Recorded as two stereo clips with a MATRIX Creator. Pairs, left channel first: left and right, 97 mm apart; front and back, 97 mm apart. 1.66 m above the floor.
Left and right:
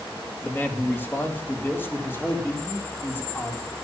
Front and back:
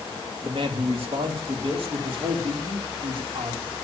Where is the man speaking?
160° left, 2.5 m; by 3.7 s 155° left, 4 m.